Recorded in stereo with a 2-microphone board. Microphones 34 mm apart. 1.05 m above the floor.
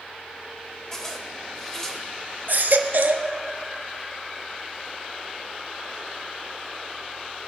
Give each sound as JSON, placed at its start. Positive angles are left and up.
{"t": 0.9, "sound": "a zipper", "side_deg": 15, "distance_m": 1.5}
{"t": 2.5, "sound": "a baby crying", "side_deg": -65, "distance_m": 0.9}